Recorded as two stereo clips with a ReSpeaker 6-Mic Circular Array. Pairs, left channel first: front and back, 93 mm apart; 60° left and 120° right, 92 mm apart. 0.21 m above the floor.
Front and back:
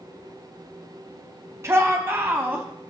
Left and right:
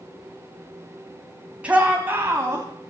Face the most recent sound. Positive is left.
turn(degrees=-125)